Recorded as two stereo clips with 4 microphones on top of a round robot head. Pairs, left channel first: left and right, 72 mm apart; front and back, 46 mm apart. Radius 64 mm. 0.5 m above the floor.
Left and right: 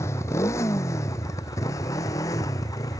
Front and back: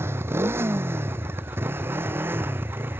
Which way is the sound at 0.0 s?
150° left.